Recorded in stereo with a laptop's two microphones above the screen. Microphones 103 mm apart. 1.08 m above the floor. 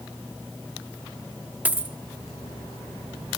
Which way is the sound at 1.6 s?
15° right (ahead or behind).